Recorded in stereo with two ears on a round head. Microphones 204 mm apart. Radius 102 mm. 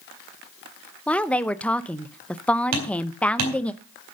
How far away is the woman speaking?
About 0.7 m.